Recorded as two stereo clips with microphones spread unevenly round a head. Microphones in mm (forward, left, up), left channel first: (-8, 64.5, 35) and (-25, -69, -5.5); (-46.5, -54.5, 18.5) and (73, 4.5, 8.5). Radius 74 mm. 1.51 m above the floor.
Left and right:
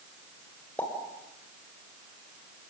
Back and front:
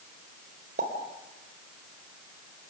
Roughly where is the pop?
Ahead.